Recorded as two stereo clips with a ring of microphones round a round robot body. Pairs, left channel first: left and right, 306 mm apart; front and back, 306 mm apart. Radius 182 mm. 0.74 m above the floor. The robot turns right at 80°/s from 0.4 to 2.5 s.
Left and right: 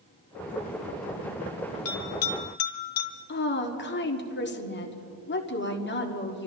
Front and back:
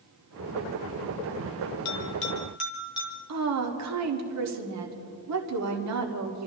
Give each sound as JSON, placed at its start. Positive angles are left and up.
{"t": 1.9, "sound": "a bell", "azimuth_deg": 40, "distance_m": 2.0}
{"t": 3.3, "sound": "a woman speaking", "azimuth_deg": 145, "distance_m": 1.7}